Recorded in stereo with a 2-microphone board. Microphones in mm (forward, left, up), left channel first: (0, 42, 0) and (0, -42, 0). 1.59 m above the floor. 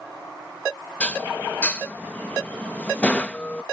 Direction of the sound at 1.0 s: 15° left (ahead or behind).